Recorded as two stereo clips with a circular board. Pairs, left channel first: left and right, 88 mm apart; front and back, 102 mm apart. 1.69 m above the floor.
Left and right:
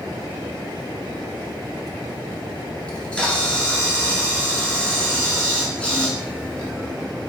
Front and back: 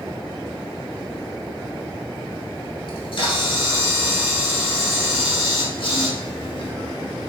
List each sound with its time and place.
2.9 s a camera shutter: 15° left, 1.9 m